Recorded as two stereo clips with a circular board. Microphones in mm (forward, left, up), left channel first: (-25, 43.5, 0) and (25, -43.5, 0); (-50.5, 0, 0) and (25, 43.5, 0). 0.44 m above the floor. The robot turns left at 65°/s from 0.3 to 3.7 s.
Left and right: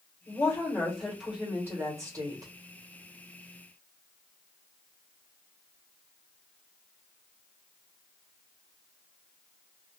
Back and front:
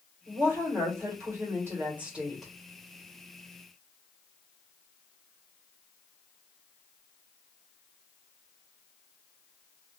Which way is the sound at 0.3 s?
80° left.